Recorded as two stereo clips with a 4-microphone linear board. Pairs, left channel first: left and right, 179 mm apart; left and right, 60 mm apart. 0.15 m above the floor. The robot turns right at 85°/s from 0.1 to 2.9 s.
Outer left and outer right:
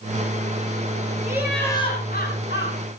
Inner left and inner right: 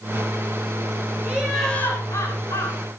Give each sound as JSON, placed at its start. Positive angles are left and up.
{"t": 1.2, "sound": "laughter", "azimuth_deg": -20, "distance_m": 7.0}